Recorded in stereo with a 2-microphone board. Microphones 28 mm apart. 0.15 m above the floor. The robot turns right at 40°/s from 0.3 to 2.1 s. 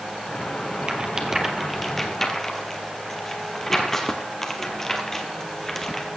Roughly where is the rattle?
Right.